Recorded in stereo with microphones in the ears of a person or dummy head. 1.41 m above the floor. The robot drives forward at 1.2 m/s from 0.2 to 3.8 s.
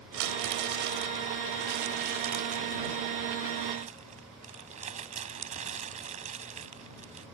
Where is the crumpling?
70° right (ahead or behind); by 7.2 s 40° right (ahead or behind).